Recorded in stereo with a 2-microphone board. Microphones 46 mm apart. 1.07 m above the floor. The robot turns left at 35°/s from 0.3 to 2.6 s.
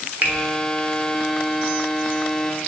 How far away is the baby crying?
I don't hear a baby crying.